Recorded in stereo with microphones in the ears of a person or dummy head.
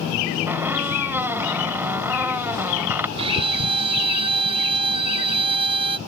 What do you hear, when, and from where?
0.5 s a squeak: 10° right (ahead or behind)
3.2 s a violin: 30° right (ahead or behind)